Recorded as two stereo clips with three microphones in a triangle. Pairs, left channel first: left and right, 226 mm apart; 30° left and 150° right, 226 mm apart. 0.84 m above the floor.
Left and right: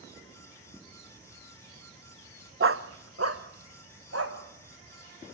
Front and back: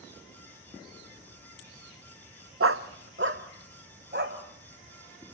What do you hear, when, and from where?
2.6 s a dog barking: 125° right, 0.8 m; by 4.4 s 105° right, 2.5 m